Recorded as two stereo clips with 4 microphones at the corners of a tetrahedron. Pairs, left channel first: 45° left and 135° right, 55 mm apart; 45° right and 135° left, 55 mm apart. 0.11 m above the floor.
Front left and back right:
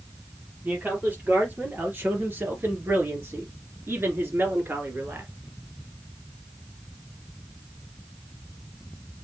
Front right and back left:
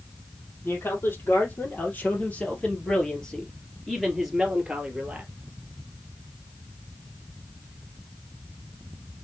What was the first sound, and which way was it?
A man speaking, 85° right.